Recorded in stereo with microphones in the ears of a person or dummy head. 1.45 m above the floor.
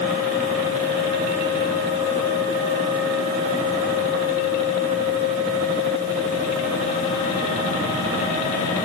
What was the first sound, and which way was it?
Only background noise.